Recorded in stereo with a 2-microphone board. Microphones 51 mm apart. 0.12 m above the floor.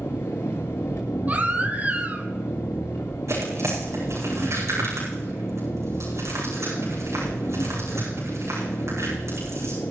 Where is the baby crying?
30° right (ahead or behind), 1.7 m.